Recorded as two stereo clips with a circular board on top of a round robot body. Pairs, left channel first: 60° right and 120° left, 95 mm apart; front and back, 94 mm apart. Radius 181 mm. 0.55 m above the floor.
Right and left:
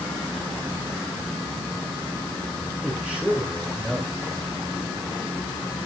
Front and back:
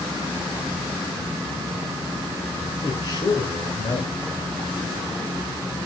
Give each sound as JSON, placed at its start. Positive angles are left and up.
{"t": 2.8, "sound": "a man speaking", "azimuth_deg": 40, "distance_m": 2.5}